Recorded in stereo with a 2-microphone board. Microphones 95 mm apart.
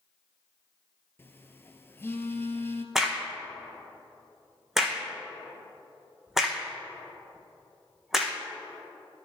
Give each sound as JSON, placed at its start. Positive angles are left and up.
{"t": 1.2, "sound": "a phone buzzing", "side_deg": 25, "distance_m": 0.5}
{"t": 3.0, "sound": "a crack", "side_deg": -5, "distance_m": 1.2}